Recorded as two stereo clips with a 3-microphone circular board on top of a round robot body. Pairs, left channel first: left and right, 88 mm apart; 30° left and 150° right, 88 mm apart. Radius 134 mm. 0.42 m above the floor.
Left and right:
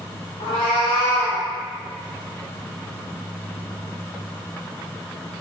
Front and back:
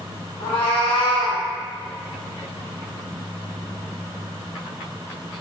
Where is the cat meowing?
60° left, 1.1 m; by 1.4 s 10° left, 0.6 m.